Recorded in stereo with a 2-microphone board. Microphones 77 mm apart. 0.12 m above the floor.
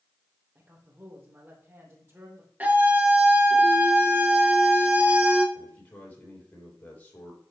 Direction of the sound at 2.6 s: 25° right (ahead or behind).